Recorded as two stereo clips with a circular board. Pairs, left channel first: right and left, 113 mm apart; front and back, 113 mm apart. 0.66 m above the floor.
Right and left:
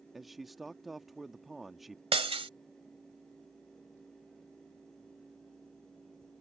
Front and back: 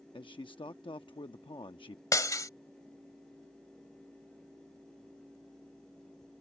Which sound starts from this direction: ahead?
A man speaking, at 0.1 s.